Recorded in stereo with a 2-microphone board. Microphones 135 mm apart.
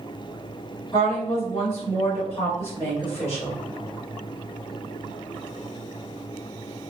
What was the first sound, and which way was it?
A woman speaking, 20° left (ahead or behind).